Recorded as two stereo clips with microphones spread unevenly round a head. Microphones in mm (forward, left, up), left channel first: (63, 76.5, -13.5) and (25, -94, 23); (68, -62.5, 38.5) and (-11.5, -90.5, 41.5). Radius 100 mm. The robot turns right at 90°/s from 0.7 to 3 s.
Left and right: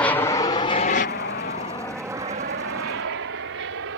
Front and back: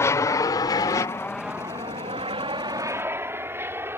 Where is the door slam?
No door slam in this recording.